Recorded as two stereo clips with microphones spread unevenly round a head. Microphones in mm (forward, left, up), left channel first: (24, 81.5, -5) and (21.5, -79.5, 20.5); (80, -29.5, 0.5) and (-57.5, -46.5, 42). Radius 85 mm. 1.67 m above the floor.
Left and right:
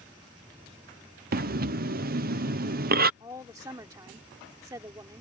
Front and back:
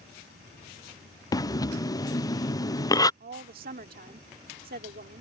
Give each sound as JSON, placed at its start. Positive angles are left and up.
{"t": 0.0, "sound": "an insect", "azimuth_deg": -170}
{"t": 1.3, "sound": "breathing", "azimuth_deg": -60}
{"t": 3.2, "sound": "a woman speaking", "azimuth_deg": -160}